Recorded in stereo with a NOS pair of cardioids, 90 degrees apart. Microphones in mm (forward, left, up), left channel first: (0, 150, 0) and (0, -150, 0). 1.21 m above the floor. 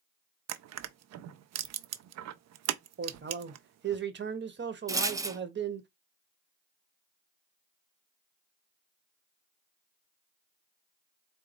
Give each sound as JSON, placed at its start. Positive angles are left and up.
{"t": 0.5, "sound": "crushing", "azimuth_deg": -55, "distance_m": 0.5}
{"t": 3.0, "sound": "a man speaking", "azimuth_deg": -35, "distance_m": 1.2}
{"t": 4.9, "sound": "a rattle", "azimuth_deg": -10, "distance_m": 0.5}